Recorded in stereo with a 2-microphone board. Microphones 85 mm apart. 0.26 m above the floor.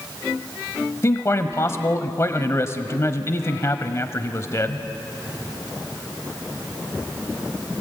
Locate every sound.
1.0 s a man speaking: 35° left (ahead or behind), 1.0 m